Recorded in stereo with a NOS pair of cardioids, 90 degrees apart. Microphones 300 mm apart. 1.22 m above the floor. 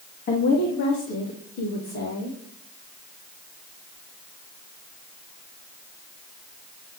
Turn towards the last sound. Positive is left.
turn(degrees=75)